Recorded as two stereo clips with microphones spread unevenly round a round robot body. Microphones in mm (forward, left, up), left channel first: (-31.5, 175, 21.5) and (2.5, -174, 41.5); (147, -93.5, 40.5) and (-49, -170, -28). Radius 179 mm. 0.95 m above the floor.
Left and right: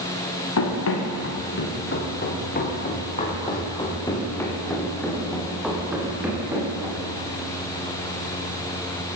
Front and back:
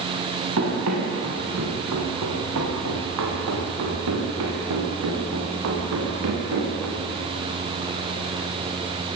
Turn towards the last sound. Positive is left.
turn(degrees=-165)